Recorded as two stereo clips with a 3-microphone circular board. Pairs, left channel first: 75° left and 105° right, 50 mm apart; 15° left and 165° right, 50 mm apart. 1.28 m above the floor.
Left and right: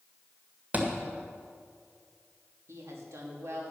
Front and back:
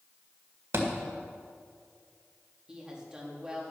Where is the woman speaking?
95° right, 2.5 m.